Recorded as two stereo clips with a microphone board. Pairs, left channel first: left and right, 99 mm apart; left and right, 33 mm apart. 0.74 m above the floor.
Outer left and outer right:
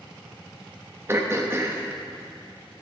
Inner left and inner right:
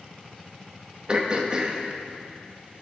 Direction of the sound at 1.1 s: 25° right (ahead or behind).